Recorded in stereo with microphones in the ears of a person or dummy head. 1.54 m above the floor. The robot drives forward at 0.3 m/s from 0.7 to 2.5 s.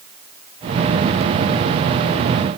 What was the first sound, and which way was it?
Only background noise.